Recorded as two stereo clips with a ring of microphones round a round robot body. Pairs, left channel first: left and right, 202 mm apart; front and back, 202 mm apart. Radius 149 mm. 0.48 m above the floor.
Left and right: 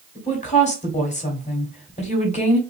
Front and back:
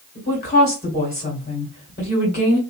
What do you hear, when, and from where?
0.1 s a woman speaking: 45° left, 1.6 m